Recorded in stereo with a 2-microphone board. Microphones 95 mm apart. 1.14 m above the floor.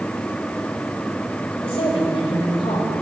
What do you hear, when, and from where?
1.6 s a woman speaking: 80° left, 2.5 m